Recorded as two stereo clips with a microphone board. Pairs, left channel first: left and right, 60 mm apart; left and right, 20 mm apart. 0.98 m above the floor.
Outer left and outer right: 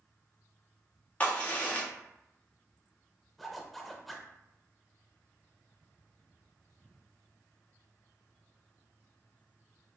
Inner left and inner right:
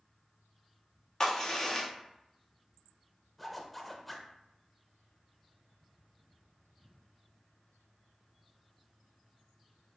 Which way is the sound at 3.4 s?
Centre (ahead or behind).